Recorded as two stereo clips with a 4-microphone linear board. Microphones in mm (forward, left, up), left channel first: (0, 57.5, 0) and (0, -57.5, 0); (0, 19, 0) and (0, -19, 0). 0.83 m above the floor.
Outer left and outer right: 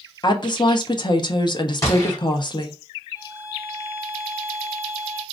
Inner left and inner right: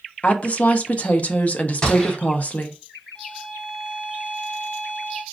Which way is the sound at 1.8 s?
25° left (ahead or behind).